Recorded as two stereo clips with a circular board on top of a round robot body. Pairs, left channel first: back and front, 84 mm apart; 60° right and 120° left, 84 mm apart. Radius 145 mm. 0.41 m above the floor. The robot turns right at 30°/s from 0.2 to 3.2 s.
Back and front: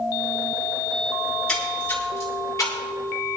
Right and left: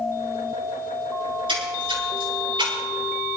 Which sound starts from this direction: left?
A splash, at 1.2 s.